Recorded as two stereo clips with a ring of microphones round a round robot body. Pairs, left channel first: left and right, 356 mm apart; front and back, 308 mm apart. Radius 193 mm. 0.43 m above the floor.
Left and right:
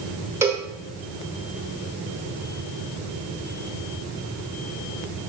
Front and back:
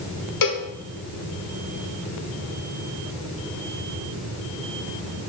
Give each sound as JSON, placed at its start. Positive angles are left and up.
{"t": 0.4, "sound": "a cowbell", "azimuth_deg": -5, "distance_m": 1.1}